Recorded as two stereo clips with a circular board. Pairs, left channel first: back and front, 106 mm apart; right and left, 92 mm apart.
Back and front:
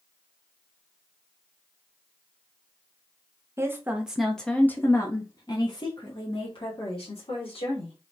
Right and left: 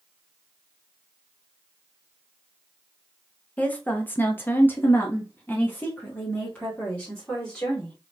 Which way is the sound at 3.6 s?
35° right.